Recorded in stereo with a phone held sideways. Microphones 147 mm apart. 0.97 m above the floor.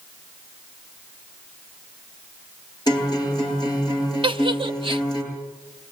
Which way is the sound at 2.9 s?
30° left (ahead or behind).